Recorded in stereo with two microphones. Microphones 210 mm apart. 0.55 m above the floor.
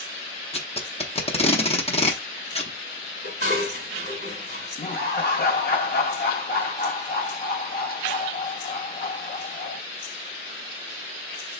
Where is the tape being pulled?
30° left (ahead or behind), 0.8 m.